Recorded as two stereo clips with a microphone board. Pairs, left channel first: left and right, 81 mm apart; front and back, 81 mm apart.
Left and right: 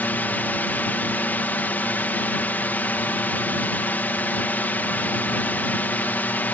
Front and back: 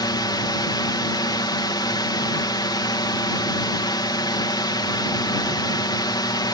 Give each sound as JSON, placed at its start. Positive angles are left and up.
{"t": 0.0, "sound": "a drone", "azimuth_deg": 25}